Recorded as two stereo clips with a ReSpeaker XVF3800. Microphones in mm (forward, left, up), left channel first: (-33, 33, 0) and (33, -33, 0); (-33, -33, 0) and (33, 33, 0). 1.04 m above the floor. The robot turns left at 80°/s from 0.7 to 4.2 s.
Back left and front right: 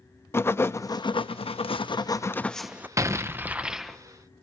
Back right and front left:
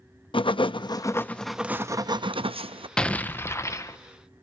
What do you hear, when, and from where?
0.3 s writing: 160° right, 0.5 m; by 2.9 s 25° left, 0.5 m
3.0 s an explosion: 60° right, 0.8 m; by 4.0 s 145° right, 0.8 m